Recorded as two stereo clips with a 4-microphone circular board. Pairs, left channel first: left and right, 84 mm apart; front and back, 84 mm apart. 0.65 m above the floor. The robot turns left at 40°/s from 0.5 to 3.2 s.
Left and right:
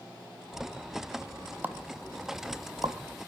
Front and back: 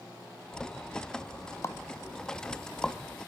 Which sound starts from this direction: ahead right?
A pop, at 1.6 s.